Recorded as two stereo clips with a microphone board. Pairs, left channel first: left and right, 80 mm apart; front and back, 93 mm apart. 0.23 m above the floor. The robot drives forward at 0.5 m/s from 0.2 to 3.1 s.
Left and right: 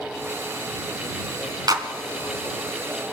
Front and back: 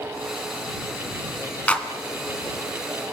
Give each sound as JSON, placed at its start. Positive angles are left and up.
{"t": 1.7, "sound": "a clap", "azimuth_deg": -70, "distance_m": 2.0}